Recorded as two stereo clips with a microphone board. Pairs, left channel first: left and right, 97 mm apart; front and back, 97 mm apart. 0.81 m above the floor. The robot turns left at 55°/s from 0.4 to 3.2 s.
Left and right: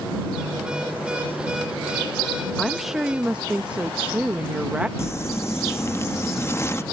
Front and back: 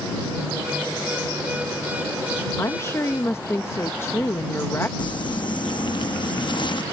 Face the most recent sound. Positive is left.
turn(degrees=30)